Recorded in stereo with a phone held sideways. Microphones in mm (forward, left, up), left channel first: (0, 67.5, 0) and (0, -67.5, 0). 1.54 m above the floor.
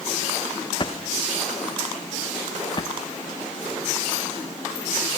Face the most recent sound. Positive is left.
turn(degrees=35)  # may be behind; listen again after turning